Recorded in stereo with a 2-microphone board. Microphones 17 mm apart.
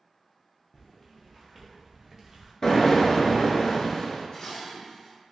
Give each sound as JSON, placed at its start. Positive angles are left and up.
{"t": 0.7, "sound": "footsteps", "side_deg": 30, "distance_m": 0.8}
{"t": 2.6, "sound": "an explosion", "side_deg": 35, "distance_m": 0.7}
{"t": 4.3, "sound": "dishes clattering", "side_deg": 50, "distance_m": 1.5}